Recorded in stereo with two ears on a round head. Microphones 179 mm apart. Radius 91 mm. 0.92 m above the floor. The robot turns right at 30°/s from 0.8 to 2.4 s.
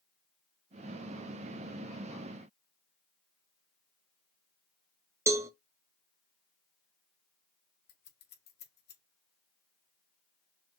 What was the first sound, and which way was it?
A cowbell, 15° right (ahead or behind).